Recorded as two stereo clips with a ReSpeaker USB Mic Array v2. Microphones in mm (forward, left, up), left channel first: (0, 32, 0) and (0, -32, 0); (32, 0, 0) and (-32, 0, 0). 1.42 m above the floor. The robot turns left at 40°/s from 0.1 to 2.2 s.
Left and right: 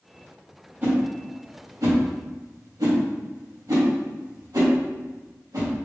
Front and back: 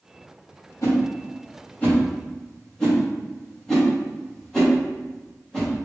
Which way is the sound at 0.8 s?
25° right.